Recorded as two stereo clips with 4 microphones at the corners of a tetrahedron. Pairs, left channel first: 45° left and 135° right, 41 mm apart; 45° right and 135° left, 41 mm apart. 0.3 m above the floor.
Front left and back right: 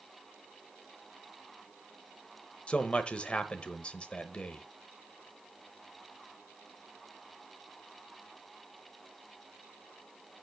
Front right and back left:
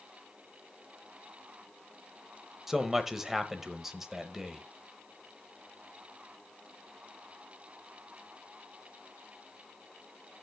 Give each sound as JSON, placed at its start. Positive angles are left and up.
{"t": 2.7, "sound": "a man speaking", "azimuth_deg": 65, "distance_m": 1.0}